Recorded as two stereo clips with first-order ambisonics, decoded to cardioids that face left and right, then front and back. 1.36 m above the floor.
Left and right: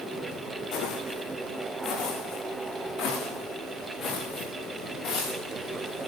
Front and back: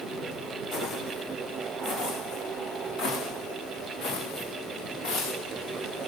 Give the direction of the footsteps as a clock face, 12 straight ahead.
10 o'clock.